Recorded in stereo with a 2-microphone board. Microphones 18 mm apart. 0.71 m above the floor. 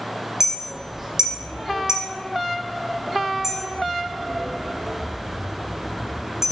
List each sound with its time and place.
0.4 s a clink: 35° right (ahead or behind), 0.6 m